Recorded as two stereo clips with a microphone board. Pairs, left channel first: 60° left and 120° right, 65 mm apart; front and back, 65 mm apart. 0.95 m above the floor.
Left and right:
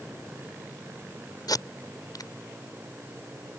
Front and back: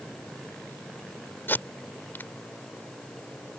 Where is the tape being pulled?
60° left.